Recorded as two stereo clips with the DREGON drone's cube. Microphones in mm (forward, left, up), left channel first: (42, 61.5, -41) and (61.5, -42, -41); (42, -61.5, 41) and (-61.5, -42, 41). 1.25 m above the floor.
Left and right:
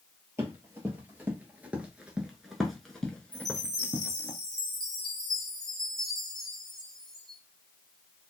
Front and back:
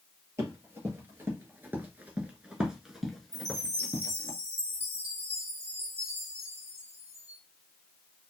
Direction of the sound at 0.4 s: 135° right.